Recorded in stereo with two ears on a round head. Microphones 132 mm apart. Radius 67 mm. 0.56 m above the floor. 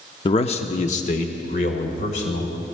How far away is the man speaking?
About 0.6 m.